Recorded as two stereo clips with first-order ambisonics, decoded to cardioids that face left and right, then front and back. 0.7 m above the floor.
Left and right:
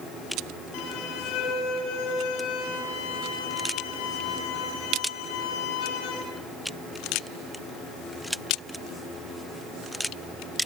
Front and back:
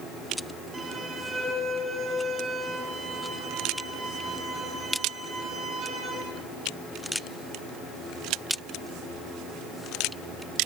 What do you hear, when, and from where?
0.7 s a violin: 110° left, 8 m